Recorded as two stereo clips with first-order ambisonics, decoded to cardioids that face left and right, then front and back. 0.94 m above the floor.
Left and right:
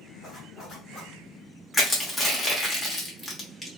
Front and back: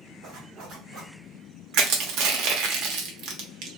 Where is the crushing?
170° left, 0.9 m.